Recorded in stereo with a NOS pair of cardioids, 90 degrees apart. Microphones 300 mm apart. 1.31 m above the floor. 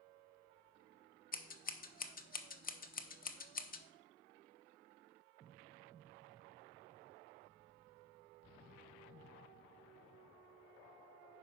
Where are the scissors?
30° left, 0.9 m.